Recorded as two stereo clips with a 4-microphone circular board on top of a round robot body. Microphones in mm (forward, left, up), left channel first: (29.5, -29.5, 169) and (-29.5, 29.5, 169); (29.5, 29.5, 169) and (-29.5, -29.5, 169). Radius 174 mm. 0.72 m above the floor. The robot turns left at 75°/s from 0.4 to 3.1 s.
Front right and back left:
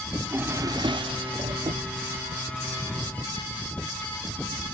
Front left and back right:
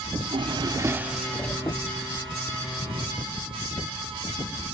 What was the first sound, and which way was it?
A drawer, 160° right.